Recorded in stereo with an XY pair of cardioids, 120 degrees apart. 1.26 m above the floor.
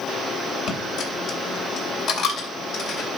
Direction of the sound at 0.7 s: 65° left.